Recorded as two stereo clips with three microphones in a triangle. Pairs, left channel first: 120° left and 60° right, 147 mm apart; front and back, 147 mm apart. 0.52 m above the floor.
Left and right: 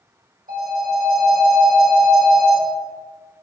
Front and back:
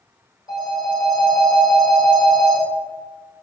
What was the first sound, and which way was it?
A phone ringing, 60° right.